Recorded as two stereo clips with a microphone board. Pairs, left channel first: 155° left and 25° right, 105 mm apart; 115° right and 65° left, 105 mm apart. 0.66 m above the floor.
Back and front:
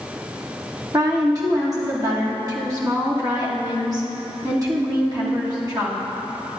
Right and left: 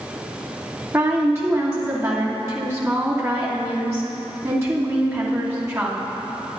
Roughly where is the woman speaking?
Ahead.